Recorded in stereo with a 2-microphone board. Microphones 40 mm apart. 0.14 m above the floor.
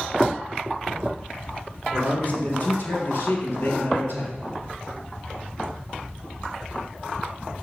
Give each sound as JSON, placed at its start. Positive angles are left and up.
{"t": 1.9, "sound": "a man speaking", "side_deg": 45, "distance_m": 3.5}